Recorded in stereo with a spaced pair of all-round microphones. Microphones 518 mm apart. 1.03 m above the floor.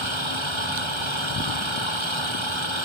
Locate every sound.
0.0 s an engine running: 60° right (ahead or behind)